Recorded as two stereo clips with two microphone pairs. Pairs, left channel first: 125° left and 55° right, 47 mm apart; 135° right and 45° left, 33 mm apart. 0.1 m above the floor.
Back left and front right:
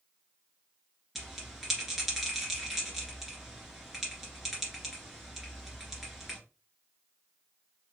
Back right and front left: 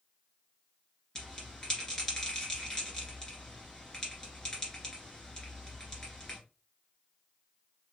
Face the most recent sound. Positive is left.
turn(degrees=-130)